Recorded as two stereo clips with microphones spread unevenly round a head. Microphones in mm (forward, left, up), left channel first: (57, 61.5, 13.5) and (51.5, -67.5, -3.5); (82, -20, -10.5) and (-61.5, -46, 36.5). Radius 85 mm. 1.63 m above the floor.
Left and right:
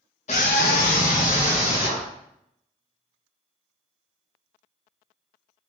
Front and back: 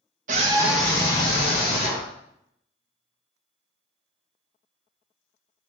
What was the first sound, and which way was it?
A scream, 140° left.